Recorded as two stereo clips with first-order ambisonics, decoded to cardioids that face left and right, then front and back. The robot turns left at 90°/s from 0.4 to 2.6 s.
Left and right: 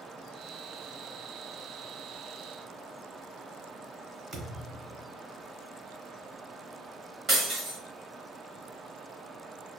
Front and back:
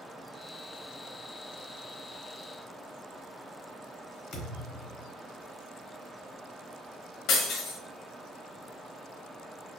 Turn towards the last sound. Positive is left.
turn(degrees=-30)